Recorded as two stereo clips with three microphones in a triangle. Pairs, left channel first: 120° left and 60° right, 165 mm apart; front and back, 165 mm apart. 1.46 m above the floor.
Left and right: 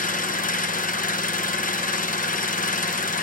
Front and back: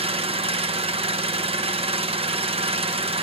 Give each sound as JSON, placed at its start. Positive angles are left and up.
{"t": 0.0, "sound": "an engine running", "azimuth_deg": 135, "distance_m": 0.8}